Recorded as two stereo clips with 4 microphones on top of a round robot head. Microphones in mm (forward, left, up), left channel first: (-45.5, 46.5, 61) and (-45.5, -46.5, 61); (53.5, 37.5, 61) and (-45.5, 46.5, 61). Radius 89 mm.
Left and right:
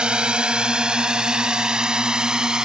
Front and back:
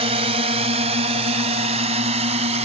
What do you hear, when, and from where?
0.0 s a drone: 170° right